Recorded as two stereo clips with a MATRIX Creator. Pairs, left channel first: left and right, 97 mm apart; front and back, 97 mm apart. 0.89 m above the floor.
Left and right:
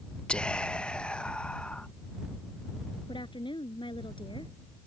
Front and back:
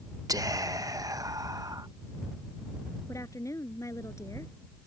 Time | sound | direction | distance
0.3 | whispering | 165° left | ?
3.1 | a woman speaking | 60° left | ?